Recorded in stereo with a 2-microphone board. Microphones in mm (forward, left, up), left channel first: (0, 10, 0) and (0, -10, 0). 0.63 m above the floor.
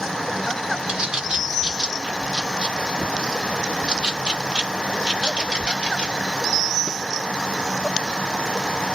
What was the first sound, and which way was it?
A bird, 60° right (ahead or behind).